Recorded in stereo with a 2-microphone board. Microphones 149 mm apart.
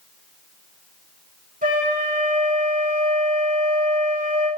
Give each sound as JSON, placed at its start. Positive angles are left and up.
{"t": 1.6, "sound": "a flute", "side_deg": -65, "distance_m": 4.5}